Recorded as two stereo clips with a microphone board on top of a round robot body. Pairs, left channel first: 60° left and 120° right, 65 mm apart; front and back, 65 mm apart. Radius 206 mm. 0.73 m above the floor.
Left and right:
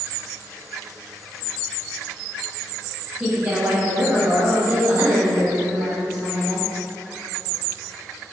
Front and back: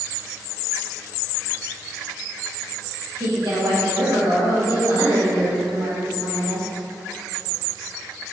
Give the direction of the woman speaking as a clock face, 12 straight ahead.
6 o'clock.